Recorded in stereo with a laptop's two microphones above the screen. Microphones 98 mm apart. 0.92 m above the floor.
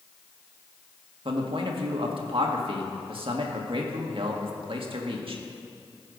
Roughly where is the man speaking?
Right.